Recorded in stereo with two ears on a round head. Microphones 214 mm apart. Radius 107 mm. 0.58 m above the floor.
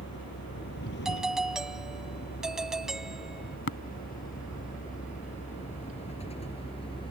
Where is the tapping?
50° left (ahead or behind).